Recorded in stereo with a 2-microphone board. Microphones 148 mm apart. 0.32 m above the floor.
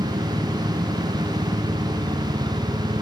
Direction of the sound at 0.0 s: 30° right (ahead or behind).